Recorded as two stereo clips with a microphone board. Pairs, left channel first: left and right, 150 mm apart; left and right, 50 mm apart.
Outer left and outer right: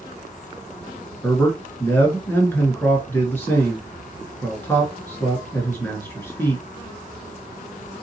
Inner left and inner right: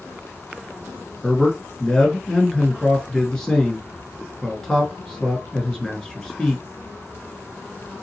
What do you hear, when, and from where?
1.2 s a man speaking: 15° left (ahead or behind), 1.3 m